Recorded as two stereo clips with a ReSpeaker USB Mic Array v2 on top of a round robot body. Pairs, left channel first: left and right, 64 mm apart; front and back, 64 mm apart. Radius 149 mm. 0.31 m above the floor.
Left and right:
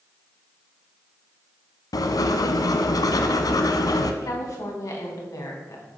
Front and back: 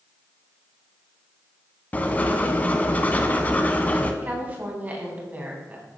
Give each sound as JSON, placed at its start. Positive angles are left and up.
{"t": 1.9, "sound": "writing", "azimuth_deg": 65, "distance_m": 0.9}
{"t": 4.2, "sound": "a woman speaking", "azimuth_deg": 120, "distance_m": 3.5}